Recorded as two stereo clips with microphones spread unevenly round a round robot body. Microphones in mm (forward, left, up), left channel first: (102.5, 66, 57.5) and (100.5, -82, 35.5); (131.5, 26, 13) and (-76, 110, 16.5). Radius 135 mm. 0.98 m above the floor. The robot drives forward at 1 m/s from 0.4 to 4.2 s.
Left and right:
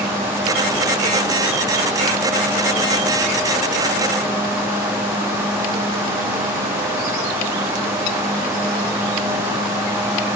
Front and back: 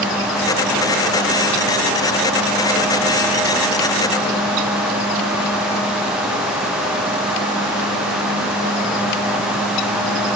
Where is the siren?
No siren in this recording.